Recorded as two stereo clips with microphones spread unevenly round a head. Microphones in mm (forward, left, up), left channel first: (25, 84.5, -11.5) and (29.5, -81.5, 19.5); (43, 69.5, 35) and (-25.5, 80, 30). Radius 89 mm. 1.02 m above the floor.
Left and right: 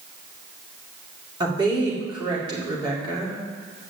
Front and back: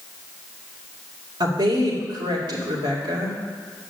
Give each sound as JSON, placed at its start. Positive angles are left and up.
{"t": 1.4, "sound": "a woman speaking", "azimuth_deg": -160, "distance_m": 2.5}